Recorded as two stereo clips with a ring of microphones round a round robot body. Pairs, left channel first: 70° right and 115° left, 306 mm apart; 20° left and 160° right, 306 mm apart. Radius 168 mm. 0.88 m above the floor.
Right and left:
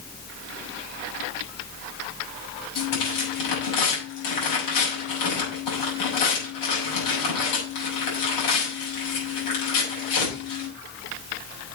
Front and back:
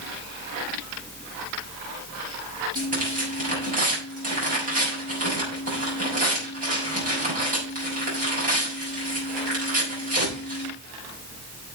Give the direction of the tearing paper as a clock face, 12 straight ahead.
3 o'clock.